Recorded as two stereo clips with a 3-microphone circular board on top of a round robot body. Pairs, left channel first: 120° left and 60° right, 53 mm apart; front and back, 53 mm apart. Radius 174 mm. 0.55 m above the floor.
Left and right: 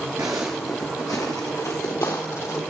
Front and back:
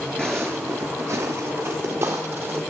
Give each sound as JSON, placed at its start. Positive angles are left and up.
{"t": 0.2, "sound": "footsteps", "azimuth_deg": -80, "distance_m": 0.5}